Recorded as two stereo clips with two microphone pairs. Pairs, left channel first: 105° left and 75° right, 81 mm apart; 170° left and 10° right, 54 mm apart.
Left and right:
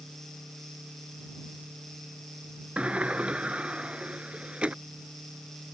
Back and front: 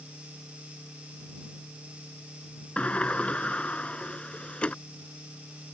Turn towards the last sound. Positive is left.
turn(degrees=-140)